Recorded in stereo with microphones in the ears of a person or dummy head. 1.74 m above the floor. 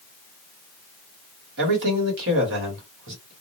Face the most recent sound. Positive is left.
turn(degrees=-60)  # may be behind; listen again after turning